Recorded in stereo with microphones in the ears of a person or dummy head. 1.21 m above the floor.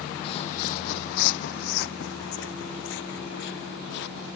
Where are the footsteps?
30° left (ahead or behind); by 4.4 s 70° left (ahead or behind).